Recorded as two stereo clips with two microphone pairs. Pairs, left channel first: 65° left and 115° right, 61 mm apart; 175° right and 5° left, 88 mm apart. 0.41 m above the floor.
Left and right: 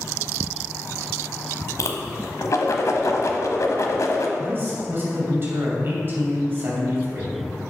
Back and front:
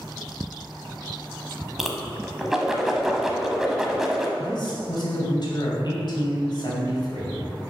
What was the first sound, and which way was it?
A whoosh, 90° left.